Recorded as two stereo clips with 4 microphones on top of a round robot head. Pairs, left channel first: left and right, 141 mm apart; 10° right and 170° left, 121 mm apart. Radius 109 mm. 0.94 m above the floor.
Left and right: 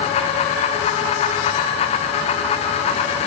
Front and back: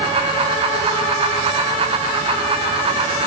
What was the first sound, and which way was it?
Only background noise.